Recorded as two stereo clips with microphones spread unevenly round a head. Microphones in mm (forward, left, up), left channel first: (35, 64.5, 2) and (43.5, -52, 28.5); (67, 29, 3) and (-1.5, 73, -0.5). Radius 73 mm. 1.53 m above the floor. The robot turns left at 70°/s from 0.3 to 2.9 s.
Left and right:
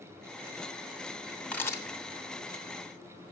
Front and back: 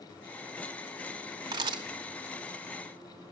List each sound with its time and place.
1.5 s a camera shutter: 175° right, 0.9 m; by 1.8 s 165° left, 0.9 m